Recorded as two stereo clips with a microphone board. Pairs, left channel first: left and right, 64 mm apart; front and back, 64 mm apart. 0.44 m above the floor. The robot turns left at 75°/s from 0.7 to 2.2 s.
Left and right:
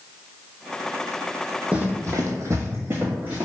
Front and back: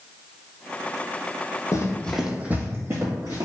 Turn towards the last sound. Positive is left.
turn(degrees=-150)